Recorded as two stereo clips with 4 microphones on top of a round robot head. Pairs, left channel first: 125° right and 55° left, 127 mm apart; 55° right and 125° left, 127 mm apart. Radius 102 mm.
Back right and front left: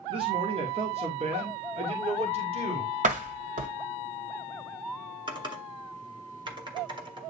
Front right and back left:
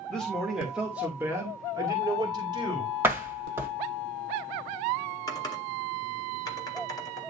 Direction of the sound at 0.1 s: 30° left.